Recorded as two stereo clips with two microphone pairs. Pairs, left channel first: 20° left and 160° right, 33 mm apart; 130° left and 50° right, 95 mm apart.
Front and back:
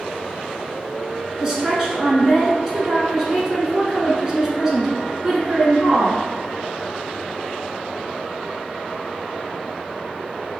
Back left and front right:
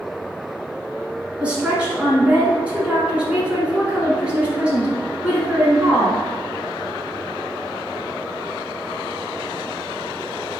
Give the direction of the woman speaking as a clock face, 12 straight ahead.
4 o'clock.